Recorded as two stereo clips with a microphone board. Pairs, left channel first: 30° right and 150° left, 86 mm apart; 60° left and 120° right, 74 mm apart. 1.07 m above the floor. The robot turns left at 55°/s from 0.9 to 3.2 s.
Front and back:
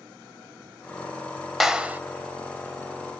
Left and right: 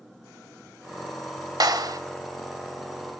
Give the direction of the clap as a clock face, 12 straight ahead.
4 o'clock.